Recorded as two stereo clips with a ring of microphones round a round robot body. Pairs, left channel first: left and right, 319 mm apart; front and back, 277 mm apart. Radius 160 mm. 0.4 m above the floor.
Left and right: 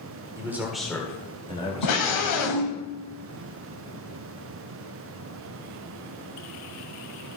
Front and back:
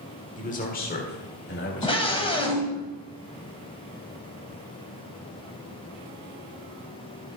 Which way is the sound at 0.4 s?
20° right.